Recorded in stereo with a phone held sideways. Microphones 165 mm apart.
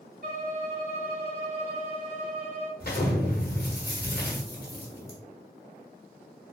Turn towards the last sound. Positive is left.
turn(degrees=60)  # may be behind; listen again after turning